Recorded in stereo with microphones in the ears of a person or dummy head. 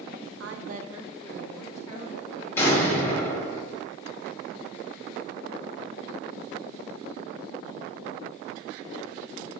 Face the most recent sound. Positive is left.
turn(degrees=15)  # may be behind; listen again after turning